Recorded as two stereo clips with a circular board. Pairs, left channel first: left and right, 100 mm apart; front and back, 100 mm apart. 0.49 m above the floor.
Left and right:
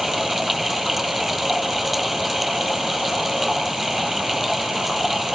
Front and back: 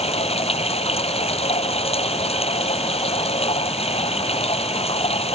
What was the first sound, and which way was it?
Running water, straight ahead.